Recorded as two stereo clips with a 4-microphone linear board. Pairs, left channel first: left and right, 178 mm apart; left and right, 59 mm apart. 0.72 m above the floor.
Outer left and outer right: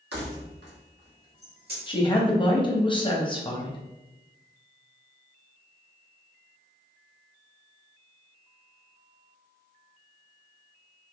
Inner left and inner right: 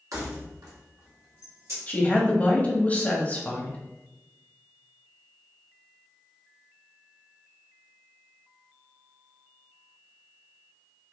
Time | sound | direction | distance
0.1 | keys jangling | 70° right (ahead or behind) | 1.0 m
1.9 | a woman speaking | 30° left (ahead or behind) | 0.8 m